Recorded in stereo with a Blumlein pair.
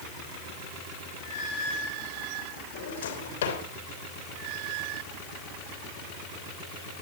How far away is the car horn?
No car horn in this recording.